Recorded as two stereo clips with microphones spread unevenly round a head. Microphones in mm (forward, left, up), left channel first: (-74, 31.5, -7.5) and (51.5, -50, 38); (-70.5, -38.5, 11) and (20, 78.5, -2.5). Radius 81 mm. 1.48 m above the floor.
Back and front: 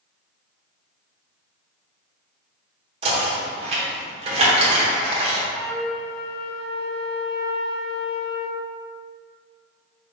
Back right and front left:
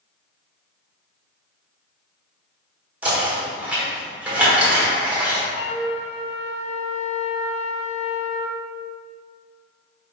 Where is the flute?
110° right, 0.5 m.